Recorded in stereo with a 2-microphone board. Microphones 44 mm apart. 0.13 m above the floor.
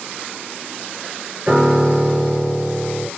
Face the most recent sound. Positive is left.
turn(degrees=-30)  # may be behind; listen again after turning